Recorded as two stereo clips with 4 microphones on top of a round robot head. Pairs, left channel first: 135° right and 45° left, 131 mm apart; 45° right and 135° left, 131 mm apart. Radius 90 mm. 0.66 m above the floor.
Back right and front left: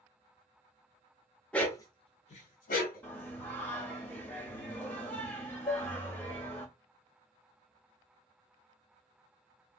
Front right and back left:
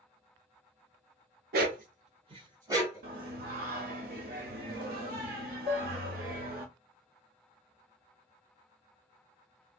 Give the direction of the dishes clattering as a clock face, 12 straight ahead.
6 o'clock.